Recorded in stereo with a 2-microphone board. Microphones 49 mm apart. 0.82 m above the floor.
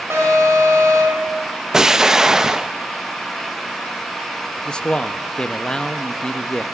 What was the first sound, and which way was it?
An alarm, 65° right (ahead or behind).